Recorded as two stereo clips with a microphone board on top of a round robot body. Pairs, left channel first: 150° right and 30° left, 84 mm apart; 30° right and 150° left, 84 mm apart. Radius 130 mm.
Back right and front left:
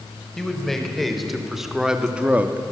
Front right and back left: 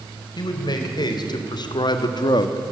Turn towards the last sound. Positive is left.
turn(degrees=-25)